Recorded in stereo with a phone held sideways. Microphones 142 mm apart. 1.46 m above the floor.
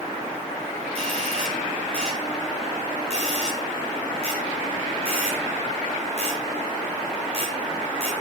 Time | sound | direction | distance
0.9 | a doorbell | 45° right (ahead or behind) | 6 m